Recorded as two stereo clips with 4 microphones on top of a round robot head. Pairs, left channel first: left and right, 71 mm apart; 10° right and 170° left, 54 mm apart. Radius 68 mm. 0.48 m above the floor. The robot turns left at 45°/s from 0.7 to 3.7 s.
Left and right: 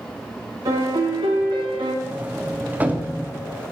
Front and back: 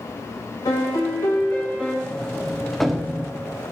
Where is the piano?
35° right, 0.8 m; by 1.9 s 95° right, 0.8 m.